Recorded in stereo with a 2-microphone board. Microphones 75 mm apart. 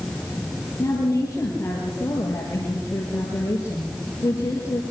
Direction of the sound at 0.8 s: 35° left (ahead or behind).